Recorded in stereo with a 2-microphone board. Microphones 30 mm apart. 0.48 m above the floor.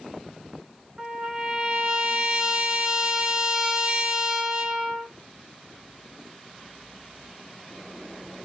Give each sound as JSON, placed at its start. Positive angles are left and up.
{"t": 1.0, "sound": "a trumpet", "side_deg": -20, "distance_m": 1.3}